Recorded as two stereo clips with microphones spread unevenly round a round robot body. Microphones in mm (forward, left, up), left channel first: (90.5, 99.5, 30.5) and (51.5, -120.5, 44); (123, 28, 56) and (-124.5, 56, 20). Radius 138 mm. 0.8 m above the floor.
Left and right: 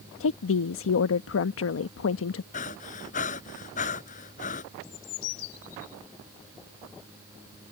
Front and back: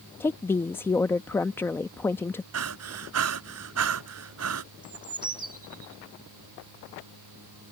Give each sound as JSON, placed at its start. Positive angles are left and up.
{"t": 0.2, "sound": "a woman speaking", "azimuth_deg": 80}
{"t": 2.5, "sound": "breathing", "azimuth_deg": 145}
{"t": 4.8, "sound": "a bird", "azimuth_deg": 100}